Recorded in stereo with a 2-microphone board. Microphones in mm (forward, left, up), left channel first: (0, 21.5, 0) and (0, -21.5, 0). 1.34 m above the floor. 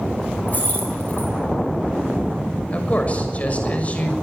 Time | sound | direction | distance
0.5 | keys jangling | 40° left (ahead or behind) | 7.5 m
2.7 | a man speaking | 35° left (ahead or behind) | 6.5 m